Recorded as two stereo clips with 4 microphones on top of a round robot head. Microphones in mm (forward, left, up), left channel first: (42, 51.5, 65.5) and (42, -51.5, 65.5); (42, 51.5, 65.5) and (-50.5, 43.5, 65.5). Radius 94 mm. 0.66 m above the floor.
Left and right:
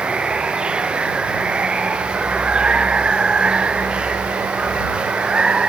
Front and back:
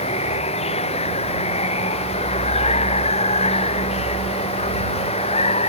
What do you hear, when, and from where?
0.0 s running water: 10° right